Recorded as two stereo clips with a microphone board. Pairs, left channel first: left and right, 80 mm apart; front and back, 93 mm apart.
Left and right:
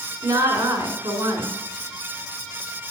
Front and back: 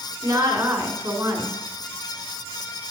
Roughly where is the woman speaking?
Behind right.